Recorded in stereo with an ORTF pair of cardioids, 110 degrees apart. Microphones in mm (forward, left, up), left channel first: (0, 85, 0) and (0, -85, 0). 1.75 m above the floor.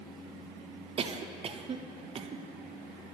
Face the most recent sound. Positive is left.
turn(degrees=-35)